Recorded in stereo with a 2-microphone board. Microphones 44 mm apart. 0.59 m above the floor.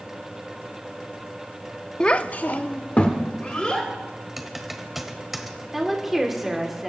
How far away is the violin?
I don't hear a violin.